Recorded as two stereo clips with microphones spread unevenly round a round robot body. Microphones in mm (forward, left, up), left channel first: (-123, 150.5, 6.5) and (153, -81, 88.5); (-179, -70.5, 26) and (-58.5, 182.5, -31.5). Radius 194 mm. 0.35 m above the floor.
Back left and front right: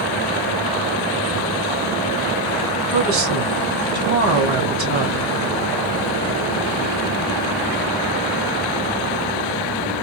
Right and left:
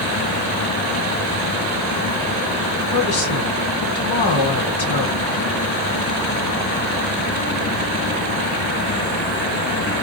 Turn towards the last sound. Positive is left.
turn(degrees=-85)